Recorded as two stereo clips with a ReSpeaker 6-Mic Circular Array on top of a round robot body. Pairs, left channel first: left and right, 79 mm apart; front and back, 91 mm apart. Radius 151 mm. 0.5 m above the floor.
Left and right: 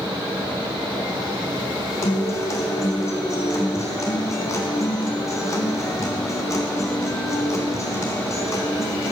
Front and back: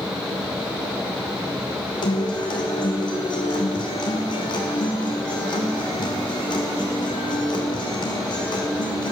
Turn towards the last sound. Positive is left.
turn(degrees=40)